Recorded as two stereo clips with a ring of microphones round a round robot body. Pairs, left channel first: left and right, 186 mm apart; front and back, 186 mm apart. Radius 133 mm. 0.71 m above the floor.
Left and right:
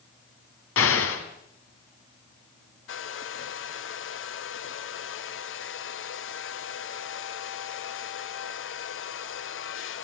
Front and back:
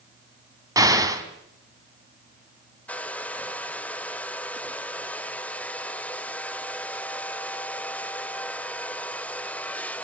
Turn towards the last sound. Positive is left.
turn(degrees=85)